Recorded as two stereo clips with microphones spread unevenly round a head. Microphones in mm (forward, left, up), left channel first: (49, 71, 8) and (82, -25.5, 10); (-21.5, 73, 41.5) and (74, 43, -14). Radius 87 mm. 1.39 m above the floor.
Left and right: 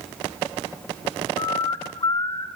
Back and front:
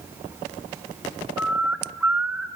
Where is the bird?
110° left, 1.0 m.